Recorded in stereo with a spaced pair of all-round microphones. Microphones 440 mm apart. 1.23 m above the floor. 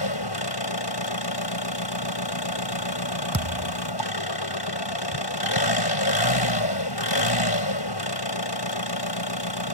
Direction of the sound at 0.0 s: 65° left (ahead or behind).